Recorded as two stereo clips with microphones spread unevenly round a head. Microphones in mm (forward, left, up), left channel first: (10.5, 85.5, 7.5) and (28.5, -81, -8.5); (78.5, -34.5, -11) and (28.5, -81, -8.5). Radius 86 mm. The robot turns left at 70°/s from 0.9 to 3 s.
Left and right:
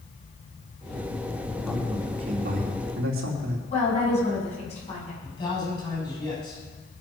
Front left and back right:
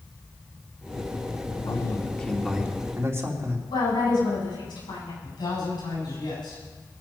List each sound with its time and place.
1.6 s a man speaking: 10° left, 3 m; by 3.6 s 85° right, 3 m
3.7 s a woman speaking: 45° left, 8 m
5.2 s a man speaking: 35° left, 8 m